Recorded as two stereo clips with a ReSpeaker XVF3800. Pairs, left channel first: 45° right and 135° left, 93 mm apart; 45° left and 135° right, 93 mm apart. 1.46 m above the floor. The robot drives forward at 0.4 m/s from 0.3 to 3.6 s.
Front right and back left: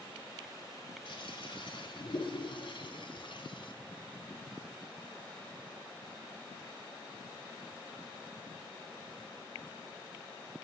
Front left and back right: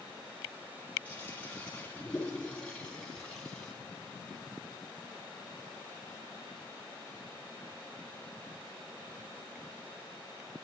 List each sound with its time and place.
1.1 s a toilet flushing: 30° right, 3.5 m; by 3.7 s 40° right, 3 m